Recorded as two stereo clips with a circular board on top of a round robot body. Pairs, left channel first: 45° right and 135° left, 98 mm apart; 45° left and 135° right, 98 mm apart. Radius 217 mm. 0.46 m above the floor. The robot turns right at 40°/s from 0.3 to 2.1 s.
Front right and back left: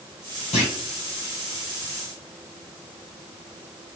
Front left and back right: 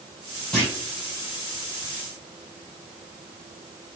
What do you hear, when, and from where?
0.5 s a clunk: 35° right, 0.6 m; by 0.7 s 25° right, 0.6 m